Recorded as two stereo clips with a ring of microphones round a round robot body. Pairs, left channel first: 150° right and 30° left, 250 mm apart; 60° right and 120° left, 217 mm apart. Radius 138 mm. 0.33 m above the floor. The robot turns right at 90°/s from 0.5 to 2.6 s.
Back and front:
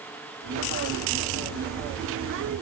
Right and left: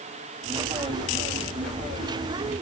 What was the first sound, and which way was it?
Only background noise.